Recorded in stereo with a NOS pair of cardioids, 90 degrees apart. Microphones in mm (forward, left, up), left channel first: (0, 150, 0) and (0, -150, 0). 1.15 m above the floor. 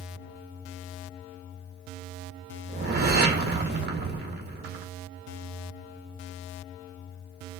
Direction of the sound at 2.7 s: 35° right.